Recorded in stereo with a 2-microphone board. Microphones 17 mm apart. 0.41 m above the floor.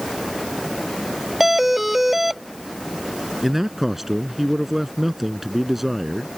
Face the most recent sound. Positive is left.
turn(degrees=-15)  # may be behind; listen again after turning